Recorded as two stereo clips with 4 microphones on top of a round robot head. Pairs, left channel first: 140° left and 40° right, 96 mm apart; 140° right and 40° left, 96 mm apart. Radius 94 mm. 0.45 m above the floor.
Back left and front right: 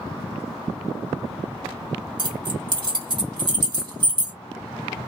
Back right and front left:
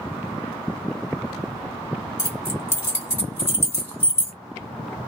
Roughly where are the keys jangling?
Right.